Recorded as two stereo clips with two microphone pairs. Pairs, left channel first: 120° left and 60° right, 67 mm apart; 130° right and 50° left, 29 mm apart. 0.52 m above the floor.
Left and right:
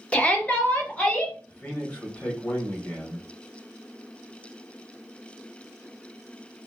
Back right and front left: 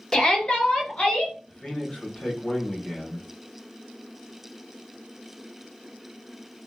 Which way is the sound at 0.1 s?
175° left.